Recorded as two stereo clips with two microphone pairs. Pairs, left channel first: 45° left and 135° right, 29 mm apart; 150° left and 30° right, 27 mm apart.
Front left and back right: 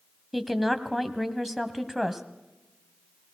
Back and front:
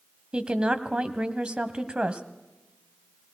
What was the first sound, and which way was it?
A woman speaking, 55° right.